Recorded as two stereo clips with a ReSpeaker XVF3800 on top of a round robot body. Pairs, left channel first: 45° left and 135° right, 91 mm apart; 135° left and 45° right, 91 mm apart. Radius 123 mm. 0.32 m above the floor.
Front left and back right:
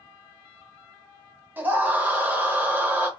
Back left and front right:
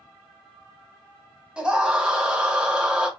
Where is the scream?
105° right, 1.2 m.